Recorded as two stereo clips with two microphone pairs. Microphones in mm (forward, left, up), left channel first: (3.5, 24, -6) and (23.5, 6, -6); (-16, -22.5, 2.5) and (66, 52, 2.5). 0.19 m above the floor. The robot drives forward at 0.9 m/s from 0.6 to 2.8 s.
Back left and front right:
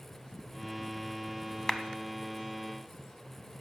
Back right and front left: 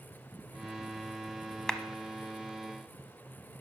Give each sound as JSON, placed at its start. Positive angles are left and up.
{"t": 1.7, "sound": "a clap", "azimuth_deg": 140, "distance_m": 0.8}